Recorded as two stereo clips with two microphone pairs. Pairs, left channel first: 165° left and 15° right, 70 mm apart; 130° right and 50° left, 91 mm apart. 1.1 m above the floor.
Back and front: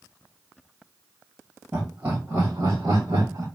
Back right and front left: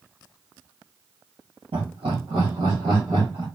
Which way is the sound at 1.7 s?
55° left.